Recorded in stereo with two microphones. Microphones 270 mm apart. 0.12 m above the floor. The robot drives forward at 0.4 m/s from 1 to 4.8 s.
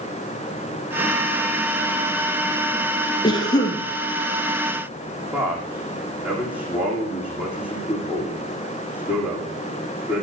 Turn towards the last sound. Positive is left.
turn(degrees=-5)  # may be behind; listen again after turning